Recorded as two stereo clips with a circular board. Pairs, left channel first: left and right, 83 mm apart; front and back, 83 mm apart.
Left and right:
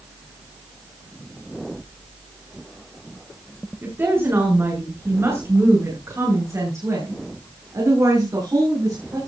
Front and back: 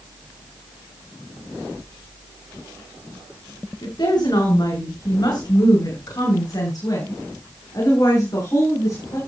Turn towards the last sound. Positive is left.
turn(degrees=-45)